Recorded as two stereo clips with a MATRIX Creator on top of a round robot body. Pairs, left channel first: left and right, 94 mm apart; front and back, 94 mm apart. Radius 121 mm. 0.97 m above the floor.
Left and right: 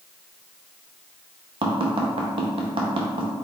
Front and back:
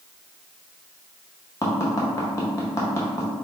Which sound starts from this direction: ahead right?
Tapping, at 1.6 s.